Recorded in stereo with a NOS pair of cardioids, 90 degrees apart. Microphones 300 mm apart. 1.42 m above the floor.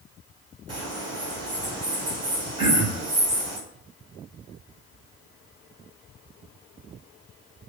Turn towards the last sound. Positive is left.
turn(degrees=-60)